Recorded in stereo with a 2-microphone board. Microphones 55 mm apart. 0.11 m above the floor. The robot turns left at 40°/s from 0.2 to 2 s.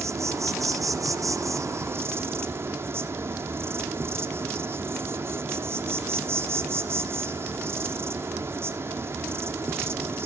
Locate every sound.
0.0 s an insect: 60° right, 1.0 m; by 10.3 s 130° right, 1.0 m